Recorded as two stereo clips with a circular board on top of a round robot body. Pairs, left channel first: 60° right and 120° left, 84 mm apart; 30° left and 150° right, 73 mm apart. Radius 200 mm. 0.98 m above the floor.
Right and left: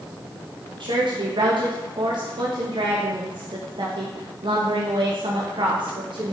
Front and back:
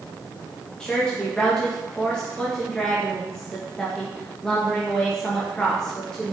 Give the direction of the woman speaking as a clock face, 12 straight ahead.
8 o'clock.